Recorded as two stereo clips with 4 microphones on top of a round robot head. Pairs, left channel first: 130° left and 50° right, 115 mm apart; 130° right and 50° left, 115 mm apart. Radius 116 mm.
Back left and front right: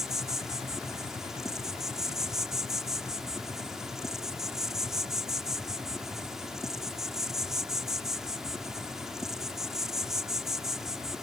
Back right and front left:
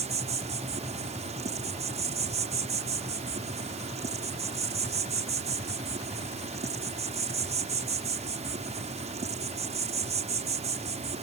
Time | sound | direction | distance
0.0 | an insect | 35° left | ?